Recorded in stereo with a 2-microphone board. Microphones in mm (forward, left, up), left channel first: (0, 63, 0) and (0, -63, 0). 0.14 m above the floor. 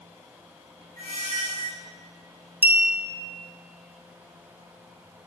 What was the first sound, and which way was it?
A squeak, 80° right.